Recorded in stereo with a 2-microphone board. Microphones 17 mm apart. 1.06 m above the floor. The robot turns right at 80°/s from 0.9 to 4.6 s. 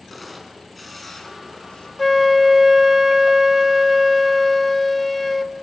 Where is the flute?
5° left (ahead or behind), 0.7 m.